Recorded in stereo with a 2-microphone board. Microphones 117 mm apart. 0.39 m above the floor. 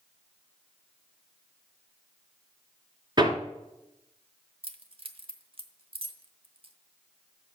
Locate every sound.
3.2 s hammering: 40° right (ahead or behind), 1.2 m
4.6 s keys jangling: 50° right (ahead or behind), 0.9 m